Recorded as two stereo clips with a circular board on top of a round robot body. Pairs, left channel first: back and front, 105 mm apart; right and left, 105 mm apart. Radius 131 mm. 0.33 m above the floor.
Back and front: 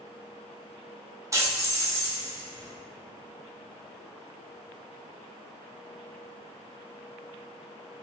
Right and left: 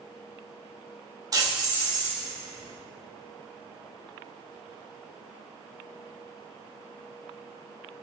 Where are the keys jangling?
50° left, 0.9 m.